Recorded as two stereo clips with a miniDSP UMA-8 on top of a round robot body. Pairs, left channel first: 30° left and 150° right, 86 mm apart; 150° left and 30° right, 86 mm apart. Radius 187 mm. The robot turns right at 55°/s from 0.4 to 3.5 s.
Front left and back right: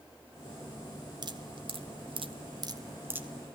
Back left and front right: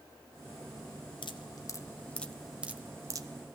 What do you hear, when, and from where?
1.2 s dripping: 175° left, 1.6 m; by 3.3 s 75° right, 1.6 m